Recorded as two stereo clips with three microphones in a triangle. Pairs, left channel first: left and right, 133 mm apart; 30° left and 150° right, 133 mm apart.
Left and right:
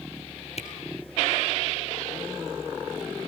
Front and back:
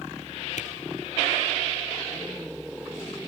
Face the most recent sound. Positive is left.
turn(degrees=55)